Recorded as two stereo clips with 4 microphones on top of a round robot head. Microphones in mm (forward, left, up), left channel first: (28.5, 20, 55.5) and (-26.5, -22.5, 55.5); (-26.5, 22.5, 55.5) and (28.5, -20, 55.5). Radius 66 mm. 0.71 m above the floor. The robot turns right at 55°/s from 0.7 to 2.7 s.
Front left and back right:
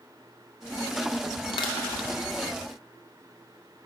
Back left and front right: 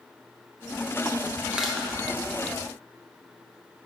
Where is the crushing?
40° left, 0.8 m; by 1.9 s 60° left, 0.8 m.